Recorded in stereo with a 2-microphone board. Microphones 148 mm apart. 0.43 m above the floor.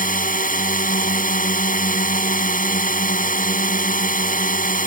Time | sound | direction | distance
0.0 | a drone | 65° left (ahead or behind) | ?